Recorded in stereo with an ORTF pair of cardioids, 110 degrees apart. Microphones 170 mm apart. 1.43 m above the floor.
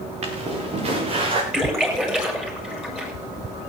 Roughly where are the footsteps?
Ahead right.